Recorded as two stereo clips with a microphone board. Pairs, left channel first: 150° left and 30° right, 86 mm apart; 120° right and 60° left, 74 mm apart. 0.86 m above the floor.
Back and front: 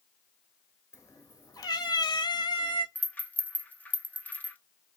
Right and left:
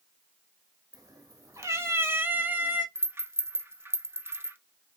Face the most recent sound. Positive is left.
turn(degrees=95)